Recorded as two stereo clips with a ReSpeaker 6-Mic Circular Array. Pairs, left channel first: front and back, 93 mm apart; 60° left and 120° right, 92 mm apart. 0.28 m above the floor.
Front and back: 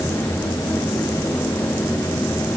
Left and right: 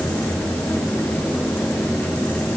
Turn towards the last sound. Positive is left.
No sound to turn to.